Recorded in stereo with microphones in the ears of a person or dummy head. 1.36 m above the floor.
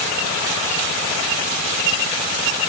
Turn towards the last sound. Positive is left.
No sound to turn to.